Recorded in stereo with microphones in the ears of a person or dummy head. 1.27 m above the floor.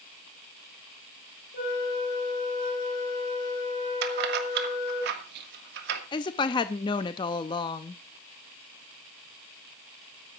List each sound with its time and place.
1.5 s a flute: 60° left (ahead or behind), 7.5 m
4.0 s keys jangling: 60° right (ahead or behind), 1.7 m
6.1 s a woman speaking: 30° left (ahead or behind), 0.5 m